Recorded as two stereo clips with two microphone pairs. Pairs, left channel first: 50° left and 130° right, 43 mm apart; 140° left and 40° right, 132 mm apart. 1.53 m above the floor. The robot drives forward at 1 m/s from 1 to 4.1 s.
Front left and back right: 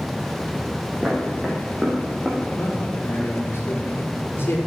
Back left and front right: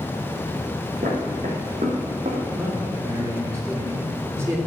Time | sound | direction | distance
1.0 | footsteps | 40° right | 5 m
2.5 | a man speaking | 25° left | 6 m